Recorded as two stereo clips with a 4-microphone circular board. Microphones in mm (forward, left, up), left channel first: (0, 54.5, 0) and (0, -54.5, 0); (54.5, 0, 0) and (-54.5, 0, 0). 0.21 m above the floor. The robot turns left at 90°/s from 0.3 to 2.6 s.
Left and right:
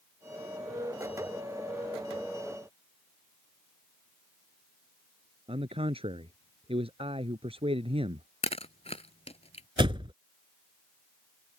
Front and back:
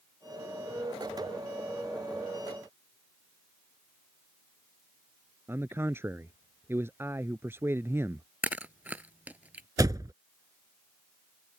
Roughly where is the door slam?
Behind right.